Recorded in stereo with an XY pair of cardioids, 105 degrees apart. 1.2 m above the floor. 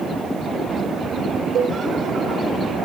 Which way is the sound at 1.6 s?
65° right.